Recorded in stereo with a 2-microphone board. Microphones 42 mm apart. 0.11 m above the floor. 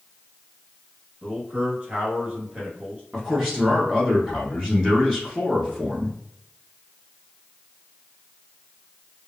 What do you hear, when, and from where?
1.2 s a man speaking: 30° right (ahead or behind), 1.7 m
3.1 s a man speaking: 5° right (ahead or behind), 1.1 m